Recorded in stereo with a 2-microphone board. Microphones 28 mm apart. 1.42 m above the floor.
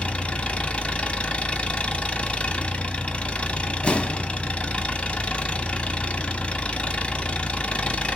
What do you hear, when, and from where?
0.0 s an engine running: 45° left (ahead or behind), 1.0 m
3.8 s an explosion: 45° left (ahead or behind), 1.2 m